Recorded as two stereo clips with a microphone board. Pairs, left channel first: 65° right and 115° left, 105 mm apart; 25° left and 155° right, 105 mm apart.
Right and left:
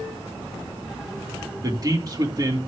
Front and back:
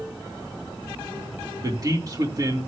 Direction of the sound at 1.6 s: 155° left.